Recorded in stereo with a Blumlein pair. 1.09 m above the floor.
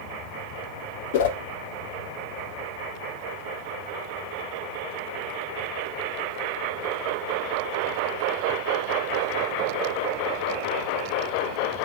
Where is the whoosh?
55° left, 0.5 m.